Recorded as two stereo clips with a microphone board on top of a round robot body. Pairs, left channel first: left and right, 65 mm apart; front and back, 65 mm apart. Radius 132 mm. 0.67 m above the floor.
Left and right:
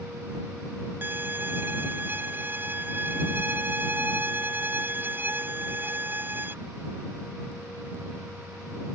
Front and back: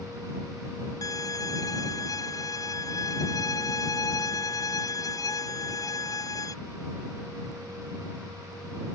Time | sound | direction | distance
1.0 | a violin | 30° right | ?